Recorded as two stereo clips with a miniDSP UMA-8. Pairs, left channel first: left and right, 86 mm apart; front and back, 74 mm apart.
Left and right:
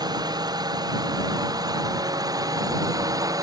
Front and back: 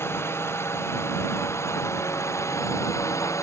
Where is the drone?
55° right; by 3.4 s 45° right.